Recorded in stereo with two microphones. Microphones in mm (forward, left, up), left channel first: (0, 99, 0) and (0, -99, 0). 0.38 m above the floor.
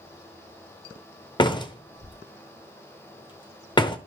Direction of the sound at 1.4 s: 25° left (ahead or behind).